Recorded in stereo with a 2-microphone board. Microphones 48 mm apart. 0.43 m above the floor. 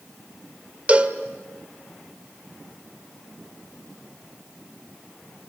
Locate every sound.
0.9 s a cowbell: 30° right (ahead or behind), 1.5 m